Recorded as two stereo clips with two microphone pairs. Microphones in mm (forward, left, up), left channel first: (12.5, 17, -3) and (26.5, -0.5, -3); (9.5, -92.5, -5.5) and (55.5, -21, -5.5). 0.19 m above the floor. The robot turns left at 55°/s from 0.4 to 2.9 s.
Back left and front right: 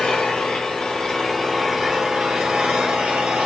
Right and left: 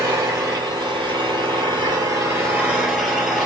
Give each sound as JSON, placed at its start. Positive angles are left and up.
{"t": 0.0, "sound": "an engine running", "azimuth_deg": 105, "distance_m": 1.3}